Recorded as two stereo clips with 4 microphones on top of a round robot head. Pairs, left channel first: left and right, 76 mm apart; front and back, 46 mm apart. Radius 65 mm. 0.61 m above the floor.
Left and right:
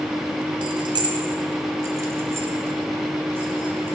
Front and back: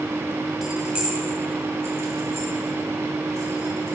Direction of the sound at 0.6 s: 95° right.